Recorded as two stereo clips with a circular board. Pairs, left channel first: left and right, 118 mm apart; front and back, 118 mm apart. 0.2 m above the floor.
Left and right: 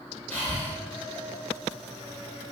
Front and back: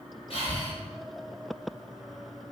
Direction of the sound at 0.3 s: 15° left.